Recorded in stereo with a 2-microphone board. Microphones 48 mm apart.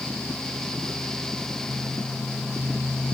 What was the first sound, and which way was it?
Only background noise.